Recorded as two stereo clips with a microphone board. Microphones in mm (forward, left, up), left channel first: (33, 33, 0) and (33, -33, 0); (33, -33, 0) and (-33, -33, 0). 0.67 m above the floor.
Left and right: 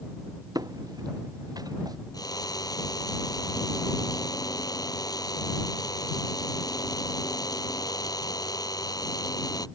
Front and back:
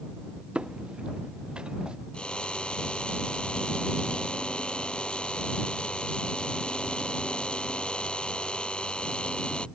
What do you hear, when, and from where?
0.6 s footsteps: 105° right
2.1 s a drill: 75° left